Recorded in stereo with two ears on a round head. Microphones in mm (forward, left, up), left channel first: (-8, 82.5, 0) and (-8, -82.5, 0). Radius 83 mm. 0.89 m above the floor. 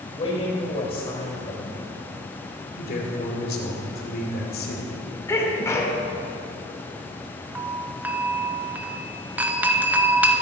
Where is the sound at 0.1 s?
35° left (ahead or behind), 5 m.